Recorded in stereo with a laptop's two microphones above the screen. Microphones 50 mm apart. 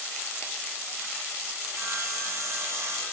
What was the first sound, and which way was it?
Sawing, 55° right (ahead or behind).